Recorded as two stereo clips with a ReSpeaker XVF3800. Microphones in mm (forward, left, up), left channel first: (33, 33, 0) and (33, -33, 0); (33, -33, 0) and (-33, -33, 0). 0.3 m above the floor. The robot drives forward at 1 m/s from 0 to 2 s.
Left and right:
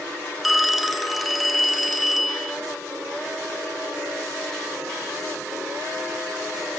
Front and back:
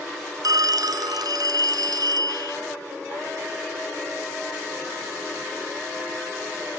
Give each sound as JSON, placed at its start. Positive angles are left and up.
{"t": 0.4, "sound": "a phone ringing", "azimuth_deg": 180}